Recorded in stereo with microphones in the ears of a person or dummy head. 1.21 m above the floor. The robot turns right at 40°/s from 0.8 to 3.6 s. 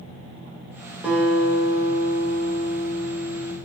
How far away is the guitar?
About 0.6 m.